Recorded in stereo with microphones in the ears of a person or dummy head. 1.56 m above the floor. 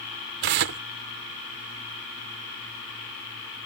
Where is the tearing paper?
45° right (ahead or behind).